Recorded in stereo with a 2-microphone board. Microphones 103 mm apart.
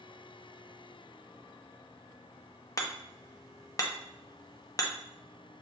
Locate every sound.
2.8 s hammering: 35° left (ahead or behind), 0.7 m